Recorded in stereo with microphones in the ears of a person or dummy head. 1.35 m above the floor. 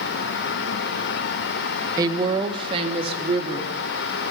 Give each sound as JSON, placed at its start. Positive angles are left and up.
{"t": 2.0, "sound": "a woman speaking", "side_deg": -25, "distance_m": 0.9}